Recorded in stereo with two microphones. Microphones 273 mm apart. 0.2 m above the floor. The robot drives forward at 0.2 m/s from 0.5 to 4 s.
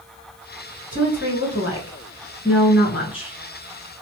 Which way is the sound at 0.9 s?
50° left (ahead or behind).